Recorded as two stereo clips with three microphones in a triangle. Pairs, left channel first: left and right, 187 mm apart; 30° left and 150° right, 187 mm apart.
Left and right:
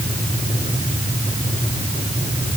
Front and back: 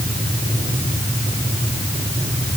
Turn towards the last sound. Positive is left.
No sound to turn to.